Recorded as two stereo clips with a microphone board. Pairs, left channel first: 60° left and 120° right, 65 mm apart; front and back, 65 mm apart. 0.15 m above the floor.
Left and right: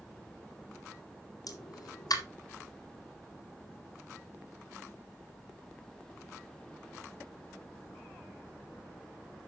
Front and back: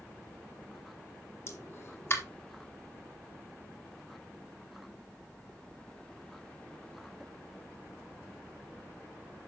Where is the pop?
50° left, 1.9 m.